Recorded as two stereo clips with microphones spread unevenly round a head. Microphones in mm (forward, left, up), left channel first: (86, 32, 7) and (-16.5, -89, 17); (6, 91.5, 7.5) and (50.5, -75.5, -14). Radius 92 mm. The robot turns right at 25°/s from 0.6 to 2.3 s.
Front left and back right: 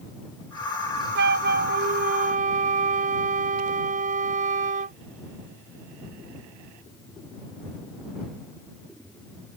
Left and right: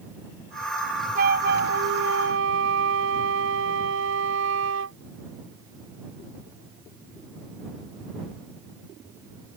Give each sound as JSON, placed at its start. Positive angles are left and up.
{"t": 1.1, "sound": "a flute", "azimuth_deg": -125}